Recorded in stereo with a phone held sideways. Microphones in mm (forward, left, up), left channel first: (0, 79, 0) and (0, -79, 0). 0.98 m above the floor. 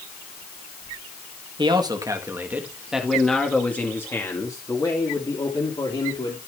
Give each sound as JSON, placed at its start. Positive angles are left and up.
{"t": 1.6, "sound": "a man speaking", "side_deg": -30, "distance_m": 1.6}